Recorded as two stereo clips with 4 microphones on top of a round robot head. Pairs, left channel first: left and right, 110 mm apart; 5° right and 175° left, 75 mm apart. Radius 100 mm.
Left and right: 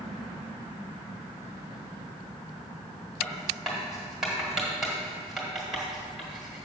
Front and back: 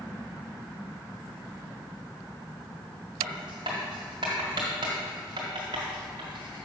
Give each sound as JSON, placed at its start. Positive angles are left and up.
{"t": 3.2, "sound": "writing", "azimuth_deg": -175, "distance_m": 1.3}